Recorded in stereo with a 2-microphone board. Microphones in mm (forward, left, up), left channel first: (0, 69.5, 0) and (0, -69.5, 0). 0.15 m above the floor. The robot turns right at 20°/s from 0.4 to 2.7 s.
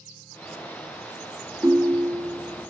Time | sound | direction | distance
1.6 | a ringtone | 25° right (ahead or behind) | 0.6 m